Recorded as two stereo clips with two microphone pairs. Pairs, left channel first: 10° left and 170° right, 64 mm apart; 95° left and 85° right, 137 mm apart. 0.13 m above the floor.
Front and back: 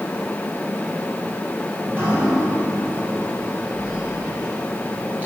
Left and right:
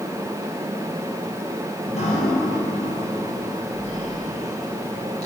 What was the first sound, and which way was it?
Dripping, 125° left.